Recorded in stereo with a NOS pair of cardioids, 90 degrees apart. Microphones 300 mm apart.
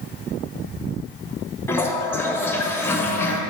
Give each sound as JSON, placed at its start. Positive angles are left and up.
{"t": 1.7, "sound": "a toilet flushing", "azimuth_deg": 10, "distance_m": 0.9}